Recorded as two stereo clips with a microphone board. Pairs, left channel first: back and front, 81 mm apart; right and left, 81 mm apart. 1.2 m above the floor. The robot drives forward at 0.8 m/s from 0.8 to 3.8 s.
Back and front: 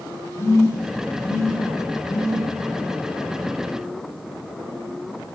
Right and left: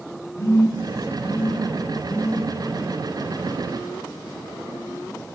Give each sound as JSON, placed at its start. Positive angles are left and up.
{"t": 0.4, "sound": "a phone buzzing", "azimuth_deg": -130, "distance_m": 4.0}